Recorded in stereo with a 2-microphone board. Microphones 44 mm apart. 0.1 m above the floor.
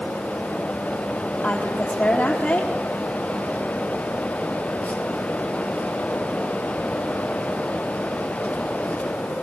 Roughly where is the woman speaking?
Left.